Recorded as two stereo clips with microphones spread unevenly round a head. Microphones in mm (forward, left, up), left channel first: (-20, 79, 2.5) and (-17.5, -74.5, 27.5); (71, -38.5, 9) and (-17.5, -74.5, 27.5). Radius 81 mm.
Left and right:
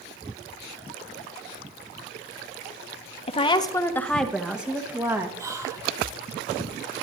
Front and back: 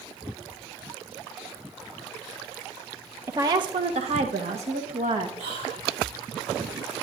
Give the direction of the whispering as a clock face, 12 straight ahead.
5 o'clock.